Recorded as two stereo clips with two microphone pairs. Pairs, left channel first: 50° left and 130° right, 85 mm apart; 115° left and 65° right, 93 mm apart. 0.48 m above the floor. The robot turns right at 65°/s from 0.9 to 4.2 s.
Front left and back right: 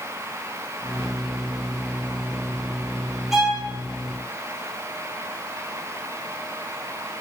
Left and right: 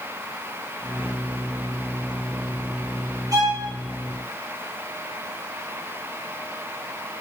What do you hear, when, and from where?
3.3 s a violin: 45° right, 1.5 m; by 3.6 s 25° right, 1.5 m